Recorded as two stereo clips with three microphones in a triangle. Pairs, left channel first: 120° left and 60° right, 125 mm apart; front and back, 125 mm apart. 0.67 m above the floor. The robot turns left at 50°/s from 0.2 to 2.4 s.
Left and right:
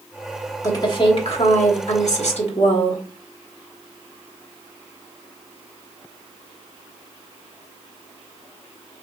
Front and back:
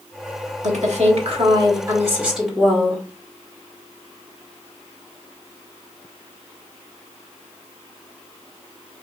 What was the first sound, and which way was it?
A woman speaking, straight behind.